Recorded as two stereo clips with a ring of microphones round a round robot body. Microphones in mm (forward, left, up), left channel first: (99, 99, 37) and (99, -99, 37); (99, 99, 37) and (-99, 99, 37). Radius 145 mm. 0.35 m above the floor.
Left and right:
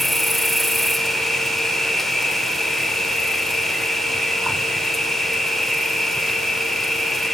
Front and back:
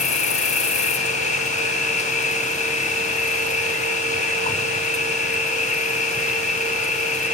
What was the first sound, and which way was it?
An insect, straight ahead.